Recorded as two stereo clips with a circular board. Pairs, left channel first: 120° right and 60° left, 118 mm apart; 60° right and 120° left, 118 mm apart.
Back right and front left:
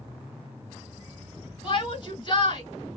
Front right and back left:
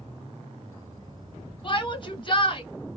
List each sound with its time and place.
1.6 s a shout: 85° right, 1.9 m